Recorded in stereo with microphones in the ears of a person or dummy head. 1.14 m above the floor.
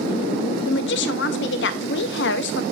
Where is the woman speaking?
60° left (ahead or behind), 0.6 m.